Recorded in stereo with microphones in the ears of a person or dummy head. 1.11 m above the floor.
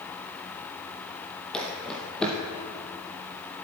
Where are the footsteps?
Centre (ahead or behind), 1.9 m.